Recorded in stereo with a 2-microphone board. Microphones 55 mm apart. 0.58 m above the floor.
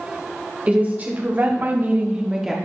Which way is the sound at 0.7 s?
30° right (ahead or behind).